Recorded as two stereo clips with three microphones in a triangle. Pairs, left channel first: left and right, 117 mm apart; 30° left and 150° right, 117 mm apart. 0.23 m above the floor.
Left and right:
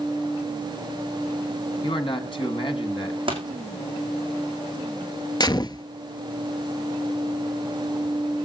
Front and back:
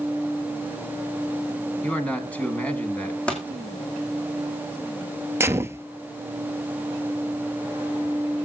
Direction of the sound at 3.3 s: 50° right.